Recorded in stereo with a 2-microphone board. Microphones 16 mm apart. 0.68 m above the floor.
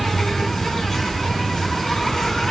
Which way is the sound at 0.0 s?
35° left (ahead or behind).